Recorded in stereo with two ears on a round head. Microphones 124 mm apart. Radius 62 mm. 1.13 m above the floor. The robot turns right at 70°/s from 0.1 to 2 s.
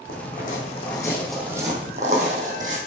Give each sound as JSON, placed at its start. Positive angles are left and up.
{"t": 0.1, "sound": "footsteps", "side_deg": 70, "distance_m": 3.5}